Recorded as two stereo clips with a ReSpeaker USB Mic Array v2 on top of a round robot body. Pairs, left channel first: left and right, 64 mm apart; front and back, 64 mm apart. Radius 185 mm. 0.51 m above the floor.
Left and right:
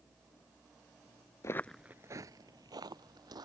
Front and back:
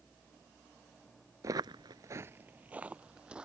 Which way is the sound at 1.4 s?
135° left.